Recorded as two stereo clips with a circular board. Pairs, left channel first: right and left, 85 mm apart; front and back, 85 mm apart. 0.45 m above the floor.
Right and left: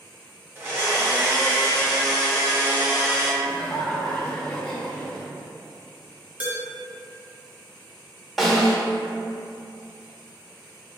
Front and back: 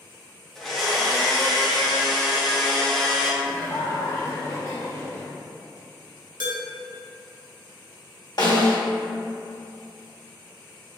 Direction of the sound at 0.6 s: 85° left.